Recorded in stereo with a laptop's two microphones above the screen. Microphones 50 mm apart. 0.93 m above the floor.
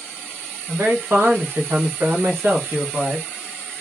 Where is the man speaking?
50° right (ahead or behind), 1.2 m; by 3.3 s 45° right (ahead or behind), 1.2 m.